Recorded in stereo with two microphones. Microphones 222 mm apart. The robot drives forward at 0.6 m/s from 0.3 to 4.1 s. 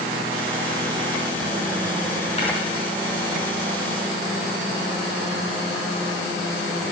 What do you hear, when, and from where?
2.4 s tapping: 30° left (ahead or behind), 4.5 m; by 2.5 s 25° left (ahead or behind), 4.5 m